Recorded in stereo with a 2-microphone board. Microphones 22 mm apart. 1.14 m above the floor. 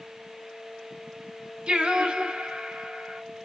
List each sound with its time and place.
1.7 s singing: 45° right (ahead or behind), 4 m